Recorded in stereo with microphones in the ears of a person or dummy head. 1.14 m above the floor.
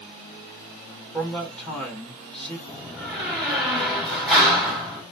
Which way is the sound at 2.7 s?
Centre (ahead or behind).